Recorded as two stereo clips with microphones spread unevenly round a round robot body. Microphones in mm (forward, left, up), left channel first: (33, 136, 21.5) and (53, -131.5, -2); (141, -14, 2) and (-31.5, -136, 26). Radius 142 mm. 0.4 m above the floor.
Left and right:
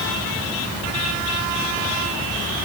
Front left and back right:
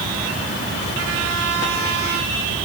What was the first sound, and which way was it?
Only background noise.